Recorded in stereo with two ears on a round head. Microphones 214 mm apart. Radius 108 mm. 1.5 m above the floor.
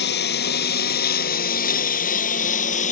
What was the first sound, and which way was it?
A lawn mower, 45° left (ahead or behind).